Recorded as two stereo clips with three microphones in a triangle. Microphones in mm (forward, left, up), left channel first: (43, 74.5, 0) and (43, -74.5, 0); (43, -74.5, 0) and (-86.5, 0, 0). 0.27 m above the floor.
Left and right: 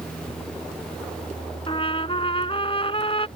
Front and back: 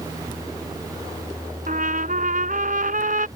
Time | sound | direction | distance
1.7 | a trumpet | 140° left | ?